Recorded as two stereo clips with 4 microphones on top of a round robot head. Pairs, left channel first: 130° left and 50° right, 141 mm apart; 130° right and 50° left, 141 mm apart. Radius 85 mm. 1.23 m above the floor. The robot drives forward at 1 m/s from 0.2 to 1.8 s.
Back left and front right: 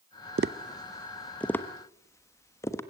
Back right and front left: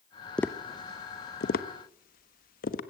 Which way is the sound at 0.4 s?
50° right.